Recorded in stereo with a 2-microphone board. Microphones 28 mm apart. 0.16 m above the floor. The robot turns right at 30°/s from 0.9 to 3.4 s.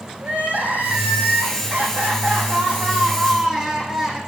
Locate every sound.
0.2 s crying: 80° right, 6.5 m; by 4.2 s 5° right, 6.5 m